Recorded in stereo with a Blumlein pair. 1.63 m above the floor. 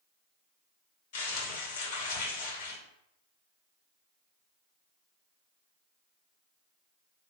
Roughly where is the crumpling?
Ahead left.